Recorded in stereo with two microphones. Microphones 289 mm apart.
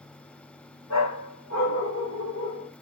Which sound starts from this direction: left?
A dog barking, at 0.9 s.